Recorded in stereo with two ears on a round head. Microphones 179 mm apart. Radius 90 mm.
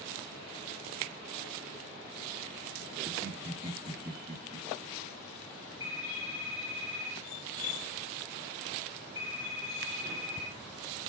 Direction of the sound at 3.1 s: 20° right (ahead or behind).